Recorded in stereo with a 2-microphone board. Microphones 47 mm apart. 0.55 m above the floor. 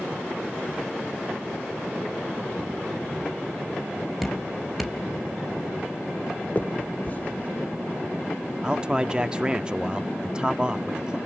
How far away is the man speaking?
About 0.6 m.